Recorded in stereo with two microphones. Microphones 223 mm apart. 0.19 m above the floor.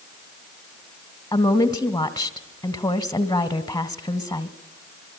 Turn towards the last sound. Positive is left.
turn(degrees=15)  # may be behind; listen again after turning